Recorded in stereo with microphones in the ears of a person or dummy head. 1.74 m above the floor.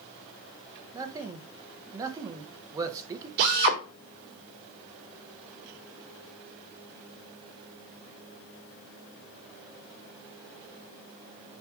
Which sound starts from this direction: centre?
A man speaking, at 0.9 s.